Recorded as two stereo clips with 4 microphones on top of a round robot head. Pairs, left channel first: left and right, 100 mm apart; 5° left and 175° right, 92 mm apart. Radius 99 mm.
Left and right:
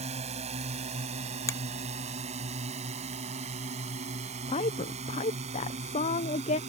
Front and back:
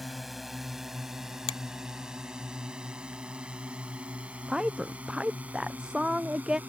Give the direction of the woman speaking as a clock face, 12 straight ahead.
9 o'clock.